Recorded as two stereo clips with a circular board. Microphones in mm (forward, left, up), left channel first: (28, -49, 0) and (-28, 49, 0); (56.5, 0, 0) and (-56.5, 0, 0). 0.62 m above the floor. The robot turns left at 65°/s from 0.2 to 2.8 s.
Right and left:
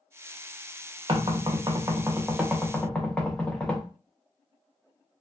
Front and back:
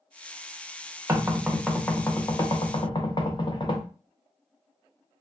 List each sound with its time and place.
1.1 s knocking: 125° left, 0.6 m; by 3.9 s 15° left, 0.6 m